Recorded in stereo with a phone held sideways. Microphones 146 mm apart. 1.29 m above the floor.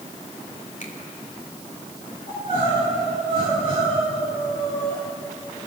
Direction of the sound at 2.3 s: 60° left (ahead or behind).